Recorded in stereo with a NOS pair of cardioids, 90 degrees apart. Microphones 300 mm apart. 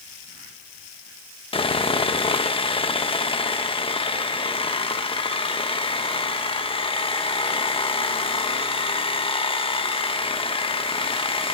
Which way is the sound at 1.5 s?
15° left.